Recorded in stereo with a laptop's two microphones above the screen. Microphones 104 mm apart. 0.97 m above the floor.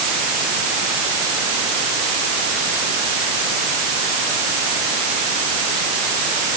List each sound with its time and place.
Only background noise.